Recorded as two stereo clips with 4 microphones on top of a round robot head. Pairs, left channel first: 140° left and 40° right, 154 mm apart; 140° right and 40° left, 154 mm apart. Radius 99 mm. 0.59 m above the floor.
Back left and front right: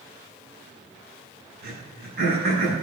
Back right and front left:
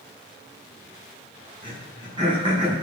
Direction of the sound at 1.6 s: 20° right.